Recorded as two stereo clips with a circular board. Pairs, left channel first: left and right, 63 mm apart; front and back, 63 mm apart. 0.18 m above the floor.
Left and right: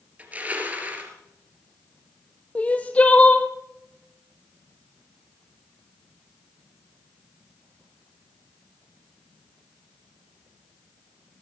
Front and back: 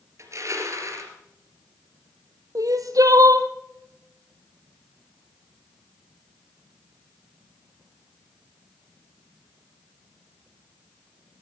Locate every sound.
0.2 s crushing: 155° right, 3 m
2.5 s crying: 160° left, 1.3 m